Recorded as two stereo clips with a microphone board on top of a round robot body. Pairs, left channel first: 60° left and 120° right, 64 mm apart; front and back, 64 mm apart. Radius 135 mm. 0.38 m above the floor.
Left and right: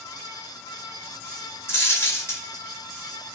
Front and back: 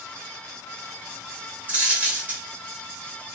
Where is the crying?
No crying in this recording.